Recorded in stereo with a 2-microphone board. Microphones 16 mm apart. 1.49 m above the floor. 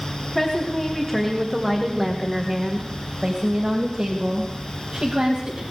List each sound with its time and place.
0.3 s a woman speaking: 15° left (ahead or behind), 2 m; by 5.6 s 75° right (ahead or behind), 3 m